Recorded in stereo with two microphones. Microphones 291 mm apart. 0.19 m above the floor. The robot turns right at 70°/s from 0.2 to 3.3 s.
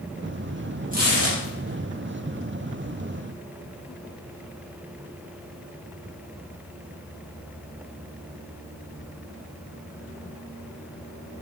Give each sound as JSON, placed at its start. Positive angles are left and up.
{"t": 0.9, "sound": "tearing paper", "side_deg": -25, "distance_m": 4.0}